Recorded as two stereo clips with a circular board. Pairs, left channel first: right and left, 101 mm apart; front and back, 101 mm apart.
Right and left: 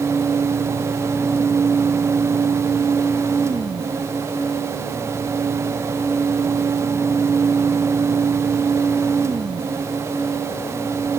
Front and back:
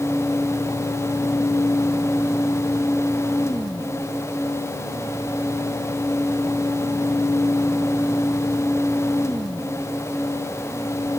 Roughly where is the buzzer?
I don't hear a buzzer.